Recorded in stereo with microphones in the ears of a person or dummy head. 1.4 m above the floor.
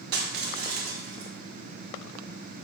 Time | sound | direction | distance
0.1 | crushing | 55° right (ahead or behind) | 1.1 m